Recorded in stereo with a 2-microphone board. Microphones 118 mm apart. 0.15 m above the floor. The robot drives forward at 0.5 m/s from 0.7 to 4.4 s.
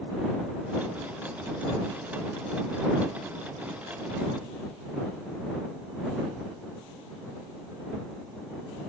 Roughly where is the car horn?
I don't hear a car horn.